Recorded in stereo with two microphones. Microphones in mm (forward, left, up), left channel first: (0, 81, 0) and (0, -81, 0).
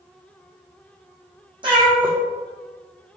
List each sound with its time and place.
1.6 s a cat meowing: 30° right (ahead or behind), 1.3 m